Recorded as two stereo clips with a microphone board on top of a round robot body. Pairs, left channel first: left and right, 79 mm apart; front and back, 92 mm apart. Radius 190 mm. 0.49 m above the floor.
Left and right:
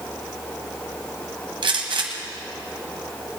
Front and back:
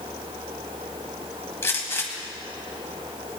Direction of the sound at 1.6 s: 65° right.